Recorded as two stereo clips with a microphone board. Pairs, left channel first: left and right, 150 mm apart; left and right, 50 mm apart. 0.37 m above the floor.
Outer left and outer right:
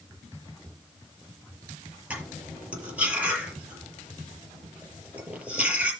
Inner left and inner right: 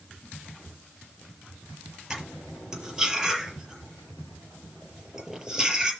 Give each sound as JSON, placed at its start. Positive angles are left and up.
{"t": 2.1, "sound": "cutlery clinking", "side_deg": -10, "distance_m": 6.0}